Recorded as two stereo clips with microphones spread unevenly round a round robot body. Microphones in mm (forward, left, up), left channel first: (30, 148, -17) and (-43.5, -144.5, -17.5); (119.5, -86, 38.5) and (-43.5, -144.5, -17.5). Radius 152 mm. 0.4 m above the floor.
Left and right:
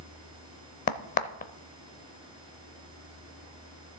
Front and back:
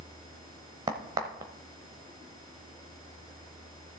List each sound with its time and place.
0.9 s a crack: 140° left, 0.6 m